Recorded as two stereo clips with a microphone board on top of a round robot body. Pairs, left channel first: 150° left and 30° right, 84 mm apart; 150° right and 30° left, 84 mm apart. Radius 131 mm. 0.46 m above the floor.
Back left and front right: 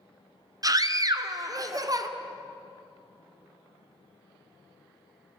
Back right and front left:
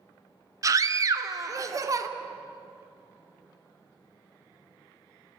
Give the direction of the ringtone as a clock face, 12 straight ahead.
I don't hear a ringtone.